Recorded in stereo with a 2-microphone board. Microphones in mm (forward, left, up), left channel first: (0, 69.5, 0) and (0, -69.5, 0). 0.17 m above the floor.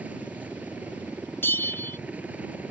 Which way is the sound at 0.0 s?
10° right (ahead or behind).